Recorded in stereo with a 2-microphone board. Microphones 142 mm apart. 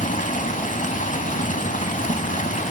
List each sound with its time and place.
0.0 s running water: 60° left (ahead or behind), 0.7 m